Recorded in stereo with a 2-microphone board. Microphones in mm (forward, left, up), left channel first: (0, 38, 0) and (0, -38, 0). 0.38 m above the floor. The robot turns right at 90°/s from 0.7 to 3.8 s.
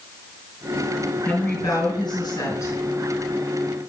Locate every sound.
1.2 s a woman speaking: 15° left, 5 m; by 2.8 s 150° left, 5 m